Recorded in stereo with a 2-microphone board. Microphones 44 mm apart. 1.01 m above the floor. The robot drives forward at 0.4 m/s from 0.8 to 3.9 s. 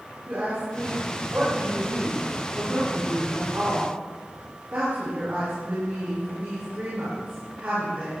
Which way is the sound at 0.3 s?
45° right (ahead or behind).